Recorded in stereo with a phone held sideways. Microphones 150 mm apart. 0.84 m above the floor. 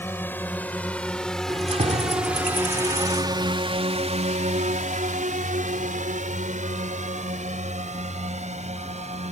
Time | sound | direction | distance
0.0 | a drone | 15° left (ahead or behind) | ?
1.5 | keys jangling | 45° right (ahead or behind) | ?